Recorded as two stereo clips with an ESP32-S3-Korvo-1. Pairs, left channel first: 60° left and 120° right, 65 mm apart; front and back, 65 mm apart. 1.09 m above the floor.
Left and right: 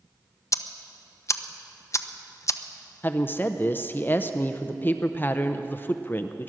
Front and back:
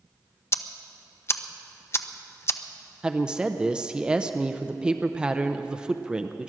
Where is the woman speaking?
110° left, 0.6 m.